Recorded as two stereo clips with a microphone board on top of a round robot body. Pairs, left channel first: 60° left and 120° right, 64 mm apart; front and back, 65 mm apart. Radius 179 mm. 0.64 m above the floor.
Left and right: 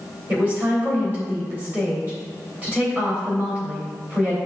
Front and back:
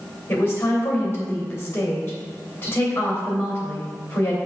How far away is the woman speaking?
About 3 m.